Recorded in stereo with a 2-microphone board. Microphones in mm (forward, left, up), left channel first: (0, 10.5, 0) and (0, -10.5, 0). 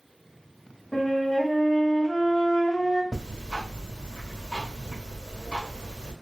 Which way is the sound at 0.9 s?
55° left (ahead or behind).